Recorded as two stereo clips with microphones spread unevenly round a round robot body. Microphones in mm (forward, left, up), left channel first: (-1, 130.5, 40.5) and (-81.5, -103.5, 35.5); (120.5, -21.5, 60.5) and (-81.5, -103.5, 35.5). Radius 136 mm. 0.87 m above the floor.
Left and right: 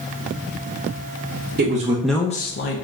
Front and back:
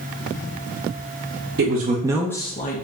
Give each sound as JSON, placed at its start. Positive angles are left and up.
{"t": 1.6, "sound": "a man speaking", "azimuth_deg": -150, "distance_m": 0.7}